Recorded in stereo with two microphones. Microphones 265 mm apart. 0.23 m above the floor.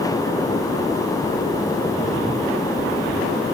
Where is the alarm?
No alarm in this recording.